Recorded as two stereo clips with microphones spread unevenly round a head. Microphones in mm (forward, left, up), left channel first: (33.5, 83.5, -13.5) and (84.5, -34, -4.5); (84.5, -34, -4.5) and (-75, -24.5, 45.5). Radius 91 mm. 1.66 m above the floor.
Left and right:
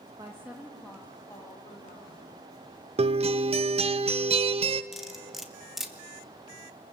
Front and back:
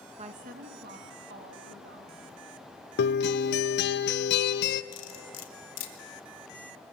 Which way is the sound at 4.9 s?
20° left.